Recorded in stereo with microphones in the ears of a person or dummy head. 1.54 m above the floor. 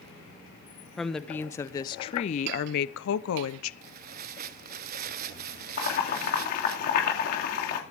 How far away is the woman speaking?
About 1.3 m.